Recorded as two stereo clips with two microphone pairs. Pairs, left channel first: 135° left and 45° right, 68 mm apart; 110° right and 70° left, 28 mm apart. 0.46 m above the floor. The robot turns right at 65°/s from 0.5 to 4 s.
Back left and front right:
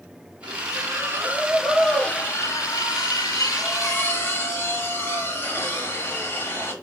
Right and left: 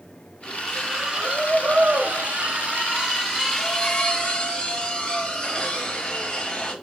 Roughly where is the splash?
Ahead right.